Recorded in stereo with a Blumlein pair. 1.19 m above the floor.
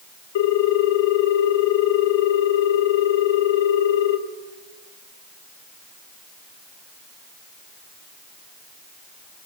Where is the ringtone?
55° left, 2 m.